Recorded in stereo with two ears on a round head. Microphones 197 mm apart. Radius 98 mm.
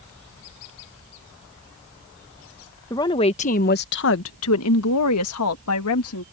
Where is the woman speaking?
15° left (ahead or behind); by 6.2 s 75° left (ahead or behind).